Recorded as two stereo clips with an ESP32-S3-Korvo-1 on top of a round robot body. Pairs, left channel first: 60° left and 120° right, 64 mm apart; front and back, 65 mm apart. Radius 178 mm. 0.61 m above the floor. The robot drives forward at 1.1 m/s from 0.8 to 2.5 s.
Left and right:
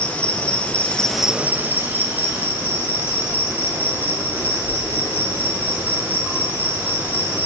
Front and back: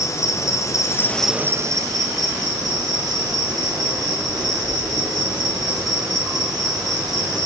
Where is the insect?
5° right, 0.7 m; by 7.5 s straight behind, 1.5 m.